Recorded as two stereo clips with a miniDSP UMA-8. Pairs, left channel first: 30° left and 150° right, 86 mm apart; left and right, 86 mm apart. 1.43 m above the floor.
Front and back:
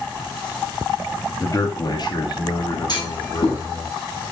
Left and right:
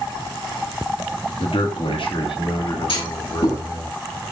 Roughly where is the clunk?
Left.